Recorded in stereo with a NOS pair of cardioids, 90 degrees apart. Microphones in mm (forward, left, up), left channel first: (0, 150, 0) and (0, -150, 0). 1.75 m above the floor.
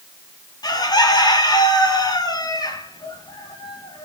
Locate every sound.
0.6 s a bird: 15° left, 3 m